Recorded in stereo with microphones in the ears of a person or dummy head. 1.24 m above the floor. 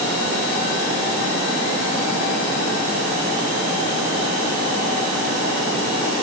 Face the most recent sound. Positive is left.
No sound to turn to.